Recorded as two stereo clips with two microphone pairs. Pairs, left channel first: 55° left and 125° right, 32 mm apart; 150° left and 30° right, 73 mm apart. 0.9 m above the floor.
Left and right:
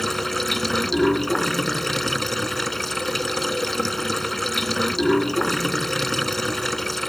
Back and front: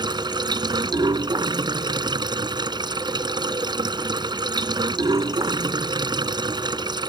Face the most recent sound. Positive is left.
turn(degrees=-25)